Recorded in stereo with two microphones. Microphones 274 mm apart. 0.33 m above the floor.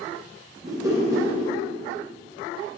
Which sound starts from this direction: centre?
A whoosh, at 0.6 s.